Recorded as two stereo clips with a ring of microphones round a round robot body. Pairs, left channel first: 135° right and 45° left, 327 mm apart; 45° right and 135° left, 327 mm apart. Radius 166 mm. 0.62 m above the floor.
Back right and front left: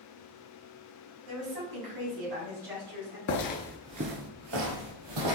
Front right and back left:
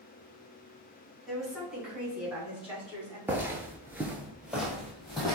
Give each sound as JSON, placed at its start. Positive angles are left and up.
{"t": 1.3, "sound": "a woman speaking", "azimuth_deg": 45, "distance_m": 1.9}
{"t": 3.3, "sound": "footsteps", "azimuth_deg": -145, "distance_m": 0.7}